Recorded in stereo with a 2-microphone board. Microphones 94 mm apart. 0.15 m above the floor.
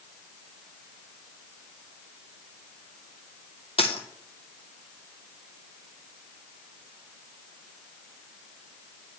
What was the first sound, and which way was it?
A dropped coin, 80° left.